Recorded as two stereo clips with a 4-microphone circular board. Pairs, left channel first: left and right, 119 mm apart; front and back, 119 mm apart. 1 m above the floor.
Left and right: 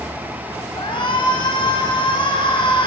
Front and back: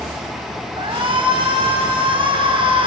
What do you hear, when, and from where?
0.8 s a shout: 135° left, 6 m